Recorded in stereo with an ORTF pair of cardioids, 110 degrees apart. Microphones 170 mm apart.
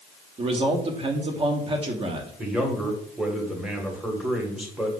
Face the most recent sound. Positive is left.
turn(degrees=-5)